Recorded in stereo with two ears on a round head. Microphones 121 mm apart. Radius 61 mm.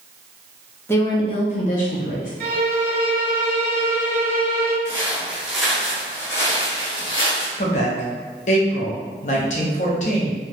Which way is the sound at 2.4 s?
55° right (ahead or behind).